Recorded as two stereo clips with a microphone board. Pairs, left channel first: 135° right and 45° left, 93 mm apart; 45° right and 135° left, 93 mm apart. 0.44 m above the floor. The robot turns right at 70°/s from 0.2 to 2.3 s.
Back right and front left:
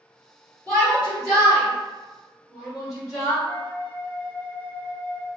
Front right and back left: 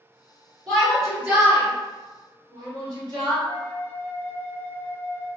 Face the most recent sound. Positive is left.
turn(degrees=15)